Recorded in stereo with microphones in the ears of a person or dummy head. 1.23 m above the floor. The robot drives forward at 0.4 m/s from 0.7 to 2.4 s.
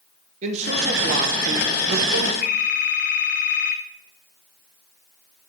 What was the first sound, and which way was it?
A man speaking, 40° right (ahead or behind).